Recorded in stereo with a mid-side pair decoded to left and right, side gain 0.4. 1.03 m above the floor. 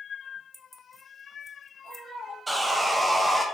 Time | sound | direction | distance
0.5 | keys jangling | 5° right | 0.5 m
2.5 | sawing | 20° right | 0.7 m